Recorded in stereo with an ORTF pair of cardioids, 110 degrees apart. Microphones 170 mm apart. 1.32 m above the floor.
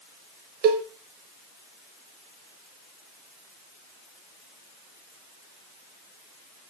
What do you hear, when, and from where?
0.6 s a cowbell: 60° right, 0.6 m